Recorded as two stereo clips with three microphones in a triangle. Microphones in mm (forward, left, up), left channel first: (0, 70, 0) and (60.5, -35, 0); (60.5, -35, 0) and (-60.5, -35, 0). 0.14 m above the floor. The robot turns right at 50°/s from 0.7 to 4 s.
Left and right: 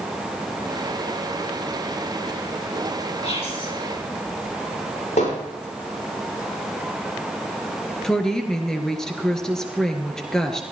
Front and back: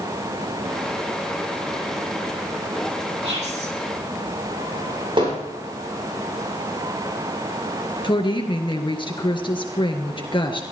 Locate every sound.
3.2 s whispering: 150° left, 5 m; by 3.7 s 175° left, 5 m
5.2 s hammering: 135° left, 8 m
8.0 s a woman speaking: 35° left, 1.9 m